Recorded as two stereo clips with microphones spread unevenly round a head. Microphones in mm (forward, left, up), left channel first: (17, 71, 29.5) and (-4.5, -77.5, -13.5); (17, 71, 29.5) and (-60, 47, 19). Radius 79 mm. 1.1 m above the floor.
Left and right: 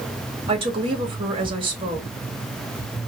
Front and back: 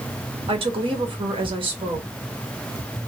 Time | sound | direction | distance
0.5 | a woman speaking | 155° right | 1.1 m